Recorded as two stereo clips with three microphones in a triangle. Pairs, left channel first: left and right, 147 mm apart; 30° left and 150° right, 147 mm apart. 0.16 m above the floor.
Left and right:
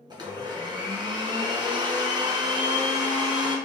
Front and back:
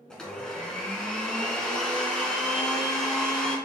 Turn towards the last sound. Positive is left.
turn(degrees=-50)